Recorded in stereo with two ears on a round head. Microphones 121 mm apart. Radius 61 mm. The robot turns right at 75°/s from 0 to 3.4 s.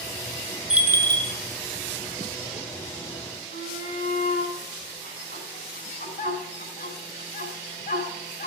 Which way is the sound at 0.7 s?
175° right.